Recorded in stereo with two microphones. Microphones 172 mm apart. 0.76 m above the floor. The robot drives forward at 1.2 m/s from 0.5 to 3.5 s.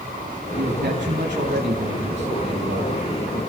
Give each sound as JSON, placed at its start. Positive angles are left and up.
{"t": 0.6, "sound": "a man speaking", "side_deg": -55, "distance_m": 5.5}